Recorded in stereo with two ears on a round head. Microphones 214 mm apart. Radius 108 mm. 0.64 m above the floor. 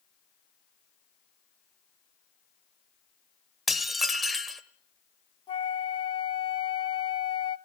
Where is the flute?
25° left (ahead or behind), 0.8 m.